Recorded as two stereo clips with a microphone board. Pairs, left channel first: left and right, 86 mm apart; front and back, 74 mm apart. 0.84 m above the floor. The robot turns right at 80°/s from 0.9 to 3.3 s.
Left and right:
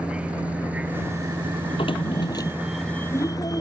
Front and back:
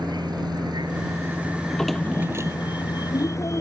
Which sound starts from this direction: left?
A drawer, at 1.6 s.